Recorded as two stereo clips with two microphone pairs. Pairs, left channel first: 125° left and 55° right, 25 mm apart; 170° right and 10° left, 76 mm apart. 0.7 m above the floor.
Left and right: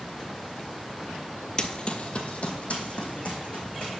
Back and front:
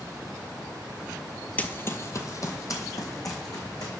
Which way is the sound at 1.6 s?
145° left.